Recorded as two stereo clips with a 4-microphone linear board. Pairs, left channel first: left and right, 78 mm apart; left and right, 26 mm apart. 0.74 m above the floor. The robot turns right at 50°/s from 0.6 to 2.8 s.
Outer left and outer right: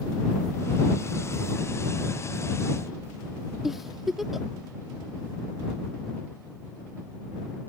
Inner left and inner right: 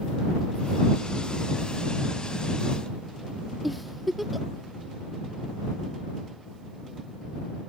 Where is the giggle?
5° right (ahead or behind).